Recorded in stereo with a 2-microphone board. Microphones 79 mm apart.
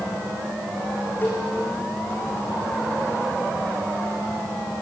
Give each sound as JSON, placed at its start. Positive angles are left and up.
{"t": 1.2, "sound": "a cowbell", "side_deg": 30, "distance_m": 7.5}